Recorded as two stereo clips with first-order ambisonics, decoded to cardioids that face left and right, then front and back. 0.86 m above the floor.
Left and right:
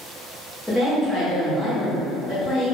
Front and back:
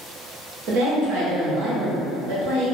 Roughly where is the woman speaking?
Behind.